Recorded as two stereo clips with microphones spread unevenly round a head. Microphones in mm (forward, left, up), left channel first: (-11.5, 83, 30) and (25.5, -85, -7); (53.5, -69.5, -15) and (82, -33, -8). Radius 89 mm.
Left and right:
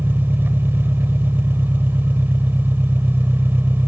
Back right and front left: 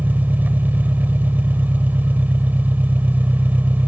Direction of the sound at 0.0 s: 5° left.